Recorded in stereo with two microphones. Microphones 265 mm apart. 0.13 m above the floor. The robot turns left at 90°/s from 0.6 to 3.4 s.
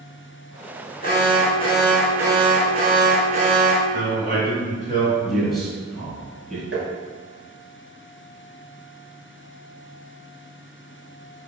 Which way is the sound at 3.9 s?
30° right (ahead or behind).